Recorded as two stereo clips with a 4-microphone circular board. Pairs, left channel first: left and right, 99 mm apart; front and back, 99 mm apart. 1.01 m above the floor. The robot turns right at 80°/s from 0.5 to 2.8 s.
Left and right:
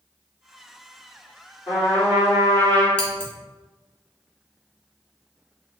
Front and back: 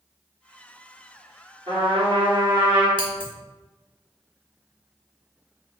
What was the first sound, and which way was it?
A trumpet, 150° left.